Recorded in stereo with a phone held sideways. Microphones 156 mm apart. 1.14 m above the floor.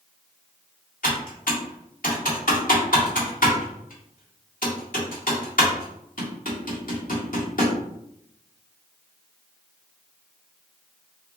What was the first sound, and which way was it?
Typing on a keyboard, 75° left (ahead or behind).